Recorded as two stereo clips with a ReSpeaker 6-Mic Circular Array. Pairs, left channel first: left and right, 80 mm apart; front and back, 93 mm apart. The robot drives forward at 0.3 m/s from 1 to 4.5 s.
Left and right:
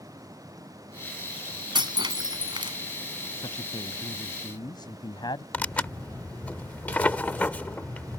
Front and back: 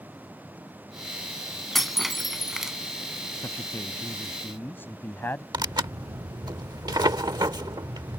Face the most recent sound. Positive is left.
turn(degrees=150)